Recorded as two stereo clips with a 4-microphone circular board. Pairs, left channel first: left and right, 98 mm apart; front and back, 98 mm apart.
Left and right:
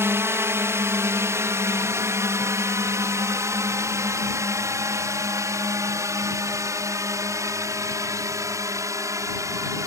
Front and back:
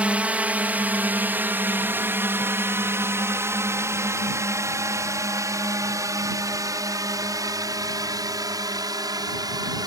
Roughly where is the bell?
I don't hear a bell.